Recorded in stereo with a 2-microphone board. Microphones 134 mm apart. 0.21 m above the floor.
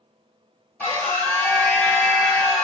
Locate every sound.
0.8 s a scream: 15° left (ahead or behind), 1.3 m